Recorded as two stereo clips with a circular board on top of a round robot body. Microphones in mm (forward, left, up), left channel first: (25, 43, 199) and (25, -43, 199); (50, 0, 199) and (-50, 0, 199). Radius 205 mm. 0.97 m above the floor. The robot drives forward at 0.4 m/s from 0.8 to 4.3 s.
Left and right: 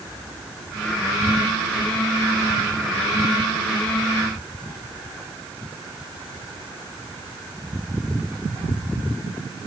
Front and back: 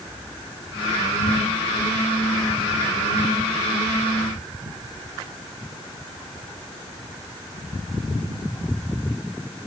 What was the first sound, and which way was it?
Only background noise.